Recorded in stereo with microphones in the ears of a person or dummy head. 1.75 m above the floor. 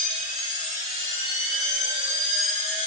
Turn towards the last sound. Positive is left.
turn(degrees=35)  # may be behind; listen again after turning